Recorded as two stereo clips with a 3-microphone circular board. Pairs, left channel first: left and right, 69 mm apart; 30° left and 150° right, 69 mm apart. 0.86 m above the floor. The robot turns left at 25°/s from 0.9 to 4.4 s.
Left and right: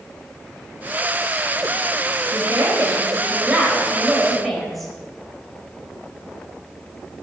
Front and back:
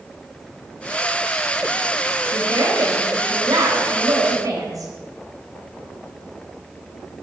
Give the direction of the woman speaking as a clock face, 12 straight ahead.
4 o'clock.